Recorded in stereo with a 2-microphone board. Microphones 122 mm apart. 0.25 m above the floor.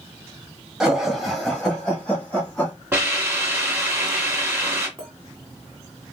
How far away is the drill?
No drill in this recording.